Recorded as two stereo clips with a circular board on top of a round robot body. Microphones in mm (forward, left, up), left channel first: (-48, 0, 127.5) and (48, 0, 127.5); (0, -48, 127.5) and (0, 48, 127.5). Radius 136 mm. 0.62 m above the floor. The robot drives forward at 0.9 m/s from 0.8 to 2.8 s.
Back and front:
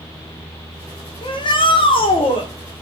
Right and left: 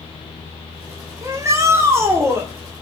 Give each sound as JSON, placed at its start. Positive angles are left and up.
{"t": 1.2, "sound": "a shout", "azimuth_deg": 150, "distance_m": 2.0}